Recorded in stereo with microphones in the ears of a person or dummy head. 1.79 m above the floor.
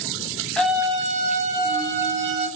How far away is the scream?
About 0.6 m.